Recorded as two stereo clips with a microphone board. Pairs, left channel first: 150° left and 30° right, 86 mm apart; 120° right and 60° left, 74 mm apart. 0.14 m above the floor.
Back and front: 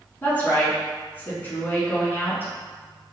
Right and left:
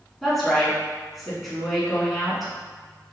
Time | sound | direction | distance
0.2 | a woman speaking | 150° left | 1.2 m